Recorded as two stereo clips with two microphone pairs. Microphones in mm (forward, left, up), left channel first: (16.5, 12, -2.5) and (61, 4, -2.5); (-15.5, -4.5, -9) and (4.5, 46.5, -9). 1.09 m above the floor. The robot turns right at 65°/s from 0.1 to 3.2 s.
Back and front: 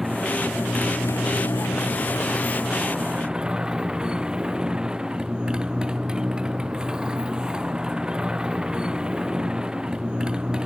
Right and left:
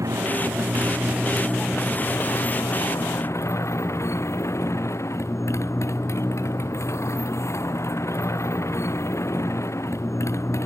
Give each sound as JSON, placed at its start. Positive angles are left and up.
{"t": 0.0, "sound": "a motorcycle", "azimuth_deg": 75}